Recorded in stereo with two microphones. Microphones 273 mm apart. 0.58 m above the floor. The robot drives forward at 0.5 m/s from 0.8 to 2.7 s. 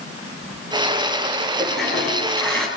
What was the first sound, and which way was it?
A toilet flushing, 5° left (ahead or behind).